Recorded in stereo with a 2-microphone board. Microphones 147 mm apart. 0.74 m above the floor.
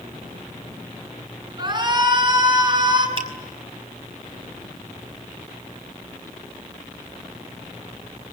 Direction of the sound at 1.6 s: 30° right (ahead or behind).